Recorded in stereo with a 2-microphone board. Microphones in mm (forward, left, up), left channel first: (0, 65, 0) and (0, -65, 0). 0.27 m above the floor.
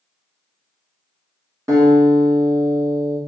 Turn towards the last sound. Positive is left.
turn(degrees=-25)  # may be behind; listen again after turning